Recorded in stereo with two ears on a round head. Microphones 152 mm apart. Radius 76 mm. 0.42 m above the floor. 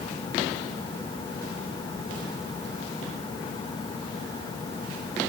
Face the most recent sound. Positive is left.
No sound to turn to.